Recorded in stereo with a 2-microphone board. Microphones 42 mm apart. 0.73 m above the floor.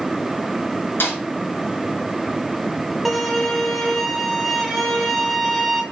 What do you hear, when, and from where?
1.0 s a snare drum: 65° left (ahead or behind), 3 m
3.0 s a violin: centre (ahead or behind), 1.3 m